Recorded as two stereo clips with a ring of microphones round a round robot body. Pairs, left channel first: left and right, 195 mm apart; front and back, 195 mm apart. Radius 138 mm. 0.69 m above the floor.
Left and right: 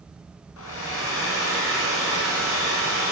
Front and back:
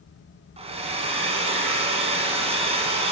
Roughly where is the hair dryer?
Behind left.